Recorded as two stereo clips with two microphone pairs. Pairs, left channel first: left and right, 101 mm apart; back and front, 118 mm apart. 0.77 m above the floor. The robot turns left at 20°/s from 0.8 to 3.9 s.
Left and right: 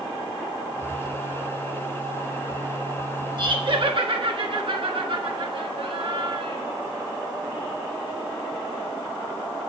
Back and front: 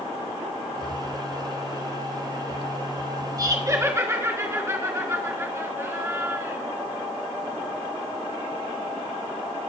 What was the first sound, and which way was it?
Laughter, 55° right.